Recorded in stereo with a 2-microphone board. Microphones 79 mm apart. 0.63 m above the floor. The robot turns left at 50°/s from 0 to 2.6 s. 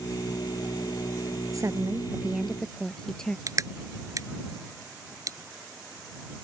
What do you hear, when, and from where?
1.5 s a woman speaking: 130° right; by 3.4 s 175° left
3.5 s crushing: 45° right (ahead or behind)